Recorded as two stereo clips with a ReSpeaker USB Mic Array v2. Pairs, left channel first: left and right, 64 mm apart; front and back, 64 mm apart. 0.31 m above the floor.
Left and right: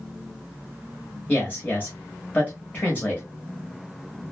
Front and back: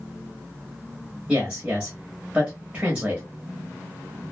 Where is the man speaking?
125° left, 1.0 m.